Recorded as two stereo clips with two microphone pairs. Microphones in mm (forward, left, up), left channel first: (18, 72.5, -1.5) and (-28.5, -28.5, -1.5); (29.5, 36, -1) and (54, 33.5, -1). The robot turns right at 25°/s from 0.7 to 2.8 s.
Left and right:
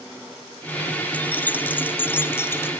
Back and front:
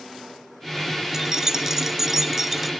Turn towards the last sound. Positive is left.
turn(degrees=60)